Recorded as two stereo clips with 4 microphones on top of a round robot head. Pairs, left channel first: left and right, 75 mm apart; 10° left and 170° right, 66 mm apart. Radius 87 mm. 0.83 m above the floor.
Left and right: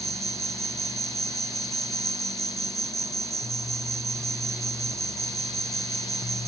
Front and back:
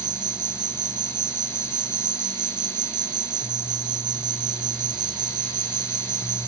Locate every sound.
0.0 s an insect: 145° right